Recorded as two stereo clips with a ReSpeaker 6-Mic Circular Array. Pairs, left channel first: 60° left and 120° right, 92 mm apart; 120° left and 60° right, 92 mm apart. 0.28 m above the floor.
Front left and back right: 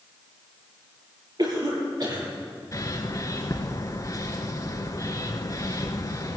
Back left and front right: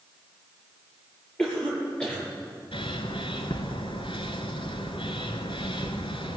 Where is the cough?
160° right, 7 m.